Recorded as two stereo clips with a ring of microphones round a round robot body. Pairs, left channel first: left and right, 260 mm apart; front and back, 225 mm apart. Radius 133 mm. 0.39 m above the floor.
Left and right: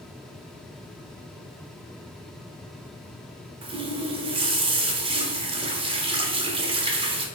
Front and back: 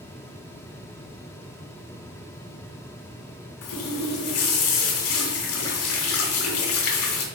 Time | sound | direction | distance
3.6 | a running tap | 20° right | 1.3 m